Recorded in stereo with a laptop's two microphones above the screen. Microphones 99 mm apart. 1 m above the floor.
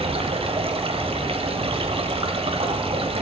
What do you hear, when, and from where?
0.0 s running water: 75° right (ahead or behind), 1.8 m